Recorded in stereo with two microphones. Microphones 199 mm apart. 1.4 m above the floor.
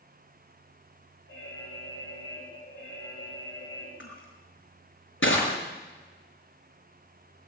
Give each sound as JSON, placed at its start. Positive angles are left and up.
{"t": 1.3, "sound": "an alarm", "side_deg": 70, "distance_m": 6.5}
{"t": 4.0, "sound": "crushing", "side_deg": 80, "distance_m": 6.0}